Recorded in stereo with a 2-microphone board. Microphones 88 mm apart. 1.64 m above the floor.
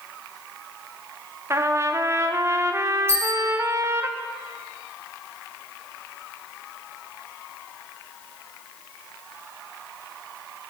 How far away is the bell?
About 3 m.